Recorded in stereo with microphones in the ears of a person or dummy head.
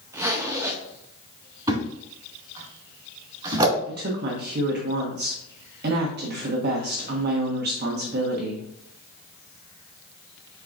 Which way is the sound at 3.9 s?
50° right (ahead or behind).